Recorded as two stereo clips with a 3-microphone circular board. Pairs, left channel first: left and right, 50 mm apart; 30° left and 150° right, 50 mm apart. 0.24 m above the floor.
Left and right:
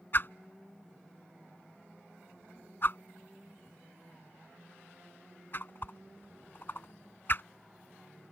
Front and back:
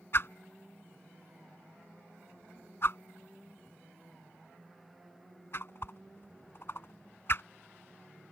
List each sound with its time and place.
0.1 s a whoosh: 55° left